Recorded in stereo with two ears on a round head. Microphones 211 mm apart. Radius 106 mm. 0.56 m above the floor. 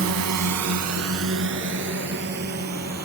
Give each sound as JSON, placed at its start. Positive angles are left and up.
{"t": 0.0, "sound": "a drone", "side_deg": -60}